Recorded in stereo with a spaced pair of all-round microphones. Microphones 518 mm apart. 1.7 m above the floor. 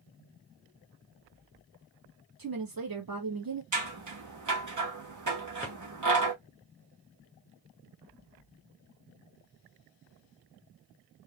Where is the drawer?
25° left (ahead or behind), 1.0 m.